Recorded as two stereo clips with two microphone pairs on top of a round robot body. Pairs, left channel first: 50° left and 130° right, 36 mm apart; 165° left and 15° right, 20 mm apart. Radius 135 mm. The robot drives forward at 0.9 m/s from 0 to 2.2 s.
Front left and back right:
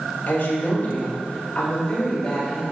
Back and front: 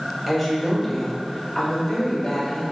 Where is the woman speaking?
65° left, 2.5 m; by 2.6 s 115° left, 2.5 m.